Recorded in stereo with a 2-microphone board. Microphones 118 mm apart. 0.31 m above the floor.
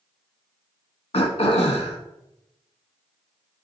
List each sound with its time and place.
1.1 s throat clearing: 60° left (ahead or behind), 0.7 m